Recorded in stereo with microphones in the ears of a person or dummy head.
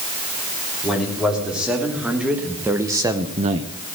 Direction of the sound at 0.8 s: Centre (ahead or behind).